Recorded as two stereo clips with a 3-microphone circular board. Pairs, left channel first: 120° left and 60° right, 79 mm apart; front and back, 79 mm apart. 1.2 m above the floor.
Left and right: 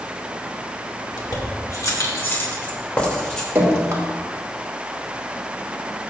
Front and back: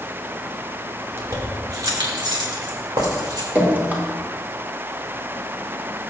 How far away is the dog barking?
I don't hear a dog barking.